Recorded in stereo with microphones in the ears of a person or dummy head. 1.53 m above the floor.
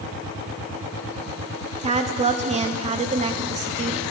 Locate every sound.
1.8 s a woman speaking: 30° right (ahead or behind), 0.5 m